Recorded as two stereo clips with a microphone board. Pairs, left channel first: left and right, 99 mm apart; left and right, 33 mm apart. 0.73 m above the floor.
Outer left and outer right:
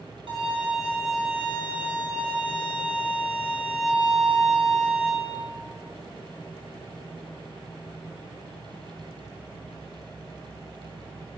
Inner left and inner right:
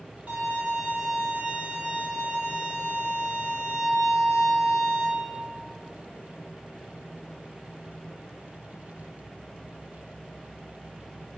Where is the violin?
60° right (ahead or behind), 1.0 m.